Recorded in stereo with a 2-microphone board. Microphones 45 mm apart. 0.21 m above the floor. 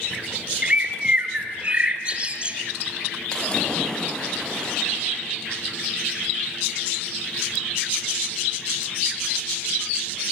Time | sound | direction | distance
0.6 | a bird | 25° right (ahead or behind) | 1.4 m
3.3 | a splash | 20° left (ahead or behind) | 4.5 m